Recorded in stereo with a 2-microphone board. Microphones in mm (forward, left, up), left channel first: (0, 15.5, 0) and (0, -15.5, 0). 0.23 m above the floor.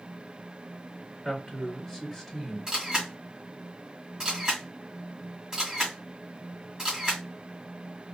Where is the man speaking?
5° left (ahead or behind), 1.6 m.